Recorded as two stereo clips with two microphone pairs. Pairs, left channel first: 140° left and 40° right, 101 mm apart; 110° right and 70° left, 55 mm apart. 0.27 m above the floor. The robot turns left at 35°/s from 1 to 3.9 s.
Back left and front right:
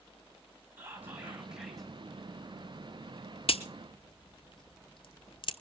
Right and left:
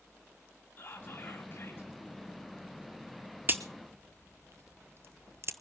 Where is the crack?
120° left, 0.8 m; by 5.5 s 105° left, 0.8 m.